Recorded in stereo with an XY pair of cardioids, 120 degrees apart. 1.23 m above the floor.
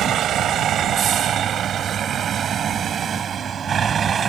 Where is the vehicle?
55° right; by 4.3 s 40° right.